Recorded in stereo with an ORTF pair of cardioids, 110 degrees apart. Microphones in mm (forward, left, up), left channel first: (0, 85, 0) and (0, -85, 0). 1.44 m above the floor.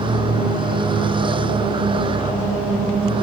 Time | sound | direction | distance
0.0 | a vehicle | 30° right | ?